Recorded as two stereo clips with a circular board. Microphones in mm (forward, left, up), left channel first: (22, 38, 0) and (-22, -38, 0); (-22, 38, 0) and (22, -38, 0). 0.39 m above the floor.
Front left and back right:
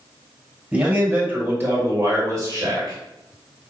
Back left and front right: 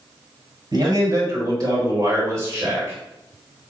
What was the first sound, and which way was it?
A man speaking, 50° right.